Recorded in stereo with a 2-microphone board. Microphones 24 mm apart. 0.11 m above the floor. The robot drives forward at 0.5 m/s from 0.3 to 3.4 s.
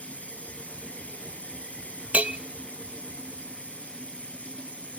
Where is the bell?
70° right (ahead or behind), 0.8 m.